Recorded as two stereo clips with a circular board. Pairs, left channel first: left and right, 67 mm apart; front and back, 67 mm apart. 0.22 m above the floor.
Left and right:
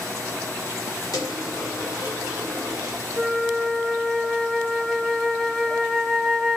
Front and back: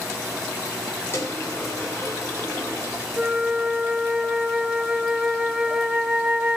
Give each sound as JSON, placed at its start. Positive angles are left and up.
{"t": 1.1, "sound": "a dropped coin", "azimuth_deg": 55, "distance_m": 7.0}
{"t": 3.2, "sound": "a flute", "azimuth_deg": 160, "distance_m": 1.3}